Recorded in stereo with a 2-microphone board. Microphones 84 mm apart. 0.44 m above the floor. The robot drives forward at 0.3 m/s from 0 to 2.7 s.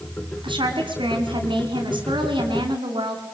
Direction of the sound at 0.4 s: 75° right (ahead or behind).